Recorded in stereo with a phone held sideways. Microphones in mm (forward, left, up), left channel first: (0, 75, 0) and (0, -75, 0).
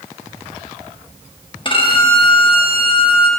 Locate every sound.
1.6 s a violin: 35° left (ahead or behind), 1.1 m